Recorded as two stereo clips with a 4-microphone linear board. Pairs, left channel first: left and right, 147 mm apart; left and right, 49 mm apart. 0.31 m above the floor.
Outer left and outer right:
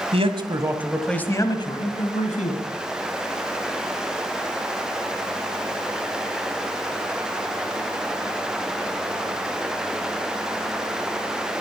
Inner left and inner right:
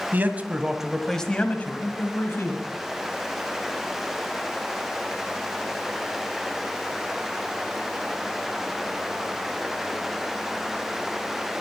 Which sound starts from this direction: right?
A man speaking, at 0.1 s.